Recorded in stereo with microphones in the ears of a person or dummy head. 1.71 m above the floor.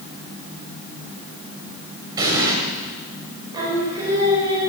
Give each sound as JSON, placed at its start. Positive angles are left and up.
{"t": 2.2, "sound": "an explosion", "side_deg": -25, "distance_m": 2.5}
{"t": 3.5, "sound": "singing", "side_deg": -25, "distance_m": 4.5}